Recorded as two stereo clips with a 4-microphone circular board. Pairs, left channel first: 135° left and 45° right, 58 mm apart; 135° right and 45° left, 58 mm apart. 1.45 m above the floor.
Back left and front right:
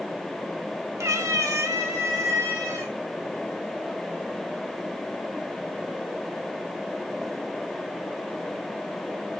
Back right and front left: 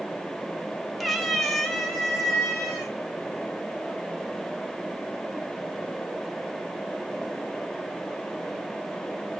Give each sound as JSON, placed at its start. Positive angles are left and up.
{"t": 1.0, "sound": "a cat meowing", "azimuth_deg": -45, "distance_m": 1.1}